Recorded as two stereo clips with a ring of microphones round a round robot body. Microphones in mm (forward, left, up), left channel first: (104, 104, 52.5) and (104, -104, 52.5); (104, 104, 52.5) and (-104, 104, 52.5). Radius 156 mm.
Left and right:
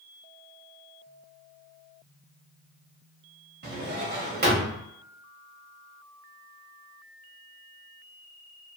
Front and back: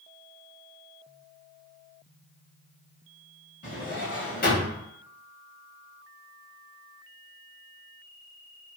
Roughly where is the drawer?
Ahead right.